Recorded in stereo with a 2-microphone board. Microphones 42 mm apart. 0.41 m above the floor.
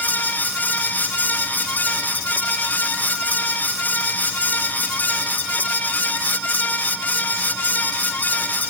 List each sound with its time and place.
Only background noise.